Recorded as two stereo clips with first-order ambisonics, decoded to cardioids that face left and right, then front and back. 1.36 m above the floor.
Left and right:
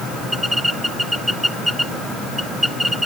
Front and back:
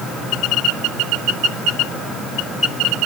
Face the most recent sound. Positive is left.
No sound to turn to.